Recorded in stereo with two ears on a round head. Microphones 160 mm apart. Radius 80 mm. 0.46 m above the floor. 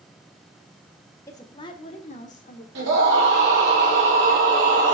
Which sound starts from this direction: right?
A scream, at 2.8 s.